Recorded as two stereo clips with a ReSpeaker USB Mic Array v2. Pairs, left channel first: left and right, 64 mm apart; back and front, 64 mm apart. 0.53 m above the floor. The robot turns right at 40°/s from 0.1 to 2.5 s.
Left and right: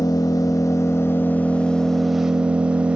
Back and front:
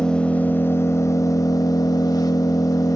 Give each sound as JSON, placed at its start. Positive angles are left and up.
{"t": 0.0, "sound": "an engine running", "azimuth_deg": 105, "distance_m": 0.7}